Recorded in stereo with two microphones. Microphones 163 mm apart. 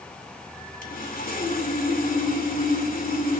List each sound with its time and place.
0.8 s sawing: 60° left (ahead or behind), 1.9 m